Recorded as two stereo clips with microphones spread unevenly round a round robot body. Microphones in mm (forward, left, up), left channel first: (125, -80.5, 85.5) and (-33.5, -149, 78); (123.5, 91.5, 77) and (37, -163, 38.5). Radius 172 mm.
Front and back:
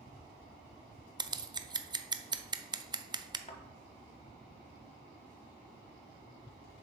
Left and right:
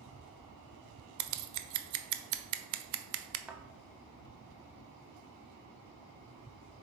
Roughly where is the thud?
Ahead.